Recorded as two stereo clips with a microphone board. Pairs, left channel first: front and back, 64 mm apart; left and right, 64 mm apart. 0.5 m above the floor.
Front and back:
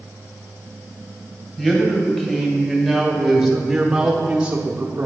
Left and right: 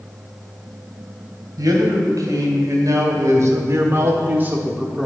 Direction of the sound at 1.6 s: 75° right.